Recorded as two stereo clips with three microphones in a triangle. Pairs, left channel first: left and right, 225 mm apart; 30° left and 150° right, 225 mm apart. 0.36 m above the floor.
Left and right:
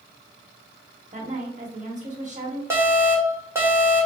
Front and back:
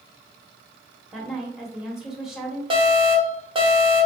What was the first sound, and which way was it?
A woman speaking, 65° right.